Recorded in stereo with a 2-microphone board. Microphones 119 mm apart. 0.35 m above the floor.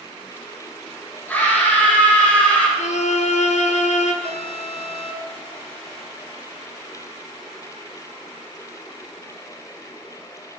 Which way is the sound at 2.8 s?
85° left.